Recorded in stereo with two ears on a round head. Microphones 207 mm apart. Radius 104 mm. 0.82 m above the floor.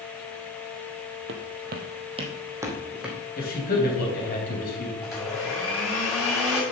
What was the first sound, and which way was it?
Footsteps, 55° right (ahead or behind).